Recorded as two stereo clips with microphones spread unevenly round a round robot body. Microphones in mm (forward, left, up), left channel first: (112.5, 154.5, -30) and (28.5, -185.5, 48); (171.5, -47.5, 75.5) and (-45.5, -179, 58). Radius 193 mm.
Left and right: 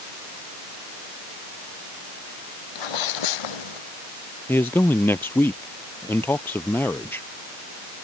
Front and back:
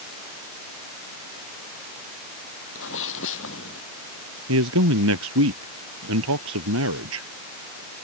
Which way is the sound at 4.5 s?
160° left.